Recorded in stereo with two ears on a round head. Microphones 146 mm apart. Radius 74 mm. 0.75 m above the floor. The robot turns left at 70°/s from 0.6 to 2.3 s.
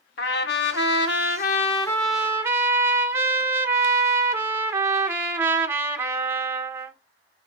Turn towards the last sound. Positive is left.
turn(degrees=-15)